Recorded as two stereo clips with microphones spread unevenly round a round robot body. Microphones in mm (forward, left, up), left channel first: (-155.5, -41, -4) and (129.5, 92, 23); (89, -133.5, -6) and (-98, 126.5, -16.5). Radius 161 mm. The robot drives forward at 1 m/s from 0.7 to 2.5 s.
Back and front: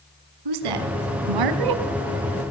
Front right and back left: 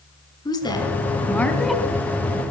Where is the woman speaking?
25° left, 3 m; by 1.8 s 40° left, 2 m.